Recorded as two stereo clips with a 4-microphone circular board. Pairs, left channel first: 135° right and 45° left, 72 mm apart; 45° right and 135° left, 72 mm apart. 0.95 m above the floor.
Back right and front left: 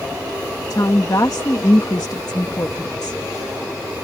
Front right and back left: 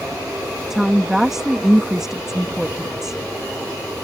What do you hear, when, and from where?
0.7 s a woman speaking: 140° right